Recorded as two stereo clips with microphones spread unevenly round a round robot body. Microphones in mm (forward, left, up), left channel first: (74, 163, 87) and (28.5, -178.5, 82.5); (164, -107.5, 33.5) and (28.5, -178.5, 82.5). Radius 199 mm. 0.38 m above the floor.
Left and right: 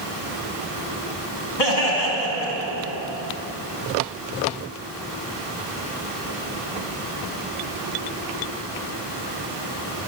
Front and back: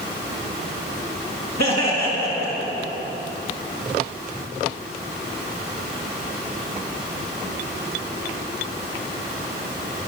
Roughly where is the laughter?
Left.